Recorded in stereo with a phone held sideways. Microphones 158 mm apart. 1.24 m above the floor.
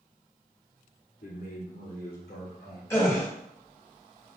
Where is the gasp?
15° left (ahead or behind), 2.5 m.